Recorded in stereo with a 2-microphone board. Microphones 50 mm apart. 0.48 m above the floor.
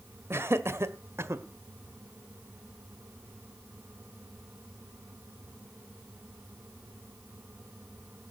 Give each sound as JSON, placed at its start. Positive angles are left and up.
{"t": 0.3, "sound": "laughter", "side_deg": -55, "distance_m": 1.6}